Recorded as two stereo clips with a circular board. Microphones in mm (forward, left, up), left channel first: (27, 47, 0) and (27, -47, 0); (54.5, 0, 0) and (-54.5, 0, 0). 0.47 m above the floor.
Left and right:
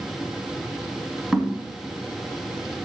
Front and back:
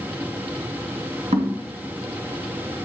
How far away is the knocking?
About 2.5 m.